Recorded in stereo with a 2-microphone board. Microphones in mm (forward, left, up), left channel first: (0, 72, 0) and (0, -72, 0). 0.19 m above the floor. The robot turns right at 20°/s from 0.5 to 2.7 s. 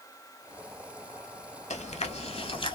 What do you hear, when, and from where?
1.7 s chewing: 50° left (ahead or behind), 0.6 m; by 2.8 s 35° left (ahead or behind), 0.6 m